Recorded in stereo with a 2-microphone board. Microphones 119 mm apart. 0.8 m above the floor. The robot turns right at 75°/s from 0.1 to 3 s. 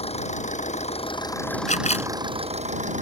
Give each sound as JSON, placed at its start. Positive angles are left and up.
{"t": 0.0, "sound": "an engine running", "azimuth_deg": 60}
{"t": 1.7, "sound": "a camera shutter", "side_deg": 85}